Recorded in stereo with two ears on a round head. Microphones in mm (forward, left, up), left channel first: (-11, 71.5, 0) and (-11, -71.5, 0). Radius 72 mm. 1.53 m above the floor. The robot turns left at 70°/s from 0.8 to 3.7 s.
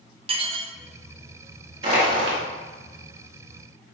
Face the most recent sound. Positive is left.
turn(degrees=-160)